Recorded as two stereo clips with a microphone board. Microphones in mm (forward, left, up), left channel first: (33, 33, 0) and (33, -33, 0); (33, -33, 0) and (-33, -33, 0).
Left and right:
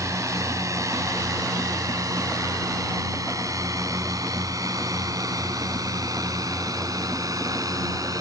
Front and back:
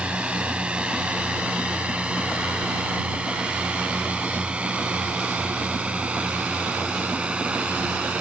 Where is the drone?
110° right.